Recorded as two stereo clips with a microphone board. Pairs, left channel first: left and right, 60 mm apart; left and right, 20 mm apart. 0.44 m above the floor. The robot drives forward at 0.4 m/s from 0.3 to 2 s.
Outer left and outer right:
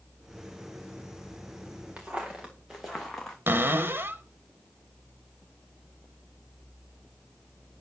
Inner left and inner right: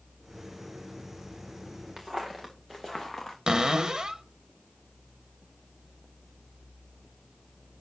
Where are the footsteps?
20° right (ahead or behind), 2.5 m; by 3.4 s 10° left (ahead or behind), 1.9 m.